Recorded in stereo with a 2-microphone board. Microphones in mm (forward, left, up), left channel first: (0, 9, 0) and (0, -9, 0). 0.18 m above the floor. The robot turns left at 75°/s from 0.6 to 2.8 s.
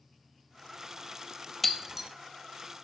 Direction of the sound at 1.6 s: 5° left (ahead or behind).